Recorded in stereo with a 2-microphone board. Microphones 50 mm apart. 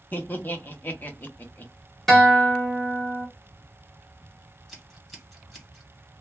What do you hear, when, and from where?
0.1 s laughter: 35° left (ahead or behind), 0.8 m
2.1 s a guitar: 5° left (ahead or behind), 1.1 m
4.7 s scissors: 5° left (ahead or behind), 1.5 m